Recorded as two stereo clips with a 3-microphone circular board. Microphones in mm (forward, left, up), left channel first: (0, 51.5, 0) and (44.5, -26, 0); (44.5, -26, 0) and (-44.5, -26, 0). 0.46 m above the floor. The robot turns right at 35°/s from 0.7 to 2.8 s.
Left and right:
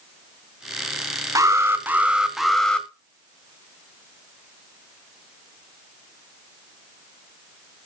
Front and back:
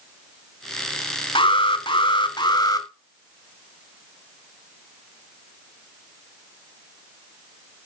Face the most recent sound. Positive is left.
turn(degrees=40)